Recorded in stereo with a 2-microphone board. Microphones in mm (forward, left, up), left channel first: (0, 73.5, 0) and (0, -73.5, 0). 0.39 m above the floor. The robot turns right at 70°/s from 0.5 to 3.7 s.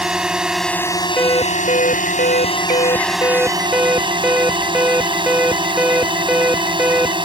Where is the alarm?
10° left; by 7.2 s 170° right.